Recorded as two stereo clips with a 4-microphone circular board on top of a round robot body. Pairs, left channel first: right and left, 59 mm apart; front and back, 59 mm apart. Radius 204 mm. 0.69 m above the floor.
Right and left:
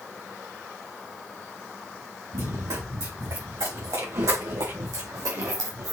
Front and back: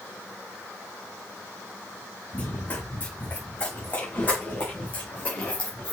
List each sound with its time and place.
2.3 s running footsteps: 60° left, 4 m; by 5.9 s 75° left, 2.5 m